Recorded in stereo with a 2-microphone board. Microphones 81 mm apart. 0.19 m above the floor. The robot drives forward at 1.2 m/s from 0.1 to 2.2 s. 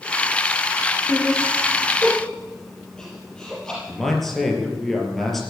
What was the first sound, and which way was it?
Laughter, 15° left (ahead or behind).